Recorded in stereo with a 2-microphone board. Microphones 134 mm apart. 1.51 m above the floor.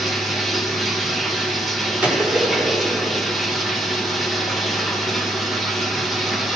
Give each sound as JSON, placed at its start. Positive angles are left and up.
{"t": 0.0, "sound": "running water", "side_deg": 0, "distance_m": 1.7}
{"t": 2.0, "sound": "a gunshot", "side_deg": -15, "distance_m": 4.0}